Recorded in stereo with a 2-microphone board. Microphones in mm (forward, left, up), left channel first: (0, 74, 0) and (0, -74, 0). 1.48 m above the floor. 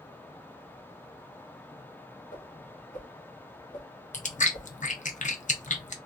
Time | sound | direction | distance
2.3 | a whoosh | 70° left (ahead or behind) | 1.3 m
4.1 | chewing | 55° left (ahead or behind) | 0.6 m